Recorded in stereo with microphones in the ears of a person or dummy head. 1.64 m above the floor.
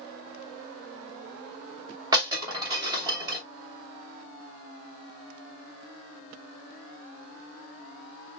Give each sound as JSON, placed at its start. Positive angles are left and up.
{"t": 2.1, "sound": "breaking glass", "side_deg": -25, "distance_m": 2.5}